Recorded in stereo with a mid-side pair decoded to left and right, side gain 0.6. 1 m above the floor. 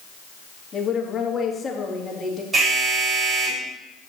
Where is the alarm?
35° right, 4.5 m.